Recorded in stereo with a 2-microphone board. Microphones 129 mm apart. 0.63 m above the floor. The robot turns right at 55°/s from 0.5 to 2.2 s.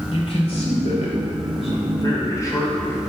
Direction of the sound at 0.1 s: 55° left.